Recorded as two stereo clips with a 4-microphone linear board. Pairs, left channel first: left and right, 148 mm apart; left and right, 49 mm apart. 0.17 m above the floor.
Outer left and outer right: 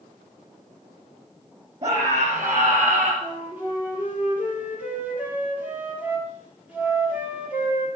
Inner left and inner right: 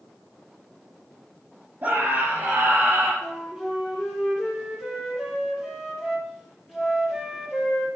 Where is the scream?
45° right (ahead or behind), 4 m; by 3.1 s 55° right (ahead or behind), 4 m.